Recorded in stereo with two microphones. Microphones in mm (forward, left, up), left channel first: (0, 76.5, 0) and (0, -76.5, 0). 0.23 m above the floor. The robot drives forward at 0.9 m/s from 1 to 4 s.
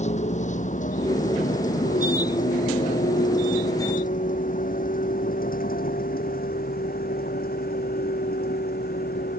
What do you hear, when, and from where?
0.0 s a vehicle: 50° left (ahead or behind); by 9.4 s 85° left